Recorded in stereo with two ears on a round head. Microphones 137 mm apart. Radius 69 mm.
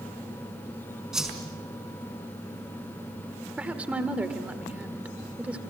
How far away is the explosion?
I don't hear an explosion.